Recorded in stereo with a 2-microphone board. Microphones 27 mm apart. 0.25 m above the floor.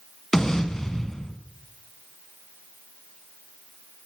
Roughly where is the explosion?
Centre.